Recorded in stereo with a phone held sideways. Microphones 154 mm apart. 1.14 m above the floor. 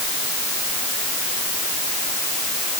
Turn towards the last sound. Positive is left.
No sound to turn to.